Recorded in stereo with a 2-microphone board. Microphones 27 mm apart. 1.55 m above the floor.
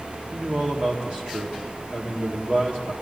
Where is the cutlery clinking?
No cutlery clinking in this recording.